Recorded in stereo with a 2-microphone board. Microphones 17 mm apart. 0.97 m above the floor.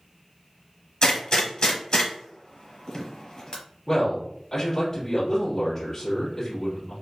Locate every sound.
1.0 s a gunshot: 50° left (ahead or behind), 1.0 m
3.9 s a man speaking: 20° left (ahead or behind), 1.6 m